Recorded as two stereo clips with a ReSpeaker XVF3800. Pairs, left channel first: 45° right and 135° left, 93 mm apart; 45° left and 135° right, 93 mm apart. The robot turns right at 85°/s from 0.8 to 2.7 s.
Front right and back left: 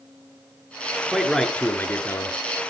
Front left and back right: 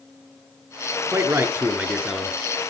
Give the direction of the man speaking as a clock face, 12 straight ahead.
5 o'clock.